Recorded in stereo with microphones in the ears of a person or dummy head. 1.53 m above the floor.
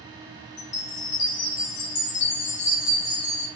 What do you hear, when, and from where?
0.6 s a chime: 55° left (ahead or behind), 0.7 m